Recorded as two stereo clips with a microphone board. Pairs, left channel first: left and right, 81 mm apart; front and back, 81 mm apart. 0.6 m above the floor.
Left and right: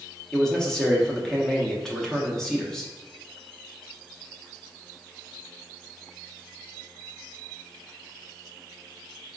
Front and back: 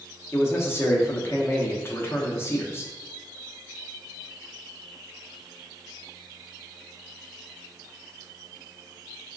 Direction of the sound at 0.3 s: 10° left.